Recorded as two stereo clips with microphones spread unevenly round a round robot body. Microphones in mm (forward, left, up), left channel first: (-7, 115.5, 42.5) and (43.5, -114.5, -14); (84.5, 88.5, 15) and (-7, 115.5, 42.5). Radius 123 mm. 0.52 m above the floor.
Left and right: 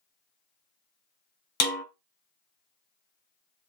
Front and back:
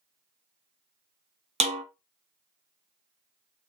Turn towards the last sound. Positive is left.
turn(degrees=160)